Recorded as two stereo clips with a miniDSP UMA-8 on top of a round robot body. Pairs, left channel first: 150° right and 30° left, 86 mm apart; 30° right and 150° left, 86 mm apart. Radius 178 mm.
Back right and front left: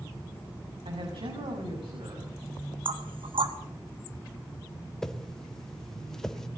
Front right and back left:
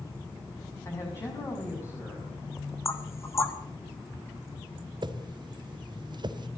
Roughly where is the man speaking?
Ahead left.